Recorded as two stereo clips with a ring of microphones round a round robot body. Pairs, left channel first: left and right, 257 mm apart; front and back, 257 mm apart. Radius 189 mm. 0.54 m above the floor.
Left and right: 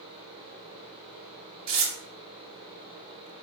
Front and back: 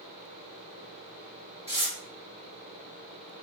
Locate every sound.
1.7 s tearing paper: 80° right, 0.7 m